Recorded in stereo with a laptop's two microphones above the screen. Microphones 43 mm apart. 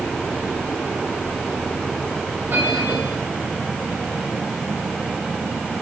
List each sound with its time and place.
2.5 s a bell: 55° right (ahead or behind), 5.5 m